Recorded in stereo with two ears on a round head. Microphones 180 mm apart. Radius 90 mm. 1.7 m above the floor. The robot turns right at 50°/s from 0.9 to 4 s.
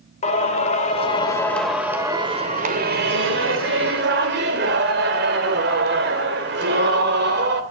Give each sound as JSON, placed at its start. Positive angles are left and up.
{"t": 0.2, "sound": "singing", "azimuth_deg": 140, "distance_m": 2.5}